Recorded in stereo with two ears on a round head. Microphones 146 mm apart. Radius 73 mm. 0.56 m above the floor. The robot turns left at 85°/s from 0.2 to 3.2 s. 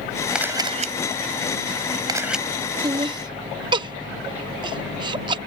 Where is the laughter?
25° right (ahead or behind); by 5.4 s 30° right (ahead or behind).